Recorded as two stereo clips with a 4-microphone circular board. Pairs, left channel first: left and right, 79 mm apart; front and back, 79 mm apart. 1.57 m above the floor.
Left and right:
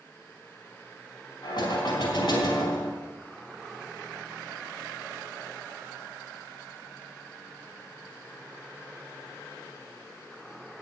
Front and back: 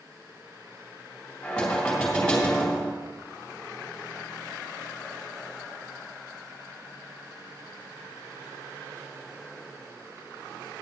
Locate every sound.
1.4 s knocking: 80° left, 3.5 m